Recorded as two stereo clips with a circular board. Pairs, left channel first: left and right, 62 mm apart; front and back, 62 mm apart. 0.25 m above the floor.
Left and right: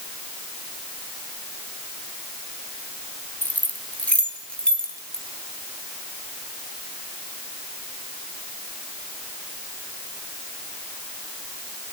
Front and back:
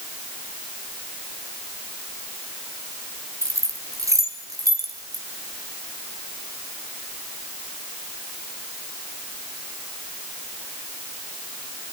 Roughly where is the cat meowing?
No cat meowing in this recording.